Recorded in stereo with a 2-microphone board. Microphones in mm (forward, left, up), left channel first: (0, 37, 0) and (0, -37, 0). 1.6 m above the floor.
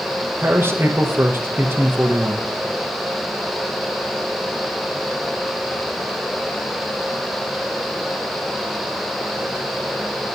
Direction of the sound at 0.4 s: 30° right (ahead or behind).